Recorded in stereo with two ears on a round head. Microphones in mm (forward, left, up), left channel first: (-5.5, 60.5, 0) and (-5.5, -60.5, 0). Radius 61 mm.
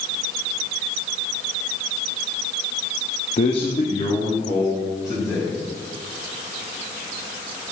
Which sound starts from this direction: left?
A man speaking, at 3.4 s.